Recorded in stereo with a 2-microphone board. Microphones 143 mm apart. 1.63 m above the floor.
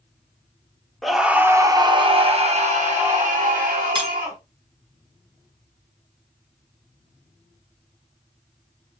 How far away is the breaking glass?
About 0.8 m.